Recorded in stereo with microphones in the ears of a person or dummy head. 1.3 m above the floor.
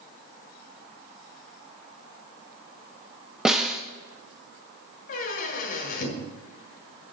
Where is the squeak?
45° left (ahead or behind), 1.8 m.